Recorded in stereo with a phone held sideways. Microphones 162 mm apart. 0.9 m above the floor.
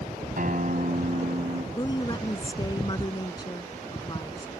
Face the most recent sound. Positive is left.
turn(degrees=25)  # may be behind; listen again after turning